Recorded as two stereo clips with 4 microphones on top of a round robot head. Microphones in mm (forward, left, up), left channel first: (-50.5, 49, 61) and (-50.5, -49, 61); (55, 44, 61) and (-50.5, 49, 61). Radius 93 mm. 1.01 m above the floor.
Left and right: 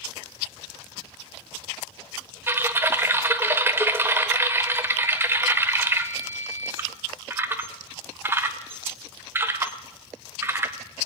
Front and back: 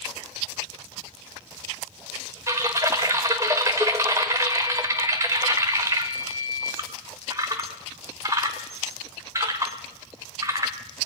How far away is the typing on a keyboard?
About 0.7 m.